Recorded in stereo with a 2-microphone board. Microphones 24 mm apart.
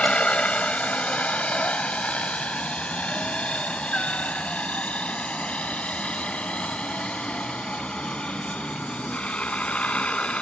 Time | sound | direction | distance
0.0 | a helicopter | 55° left (ahead or behind) | ?